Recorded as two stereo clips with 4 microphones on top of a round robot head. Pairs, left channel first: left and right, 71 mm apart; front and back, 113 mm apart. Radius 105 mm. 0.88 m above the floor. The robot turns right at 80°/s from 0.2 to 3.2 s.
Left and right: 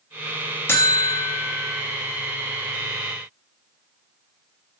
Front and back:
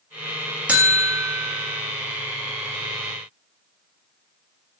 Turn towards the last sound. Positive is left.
turn(degrees=-50)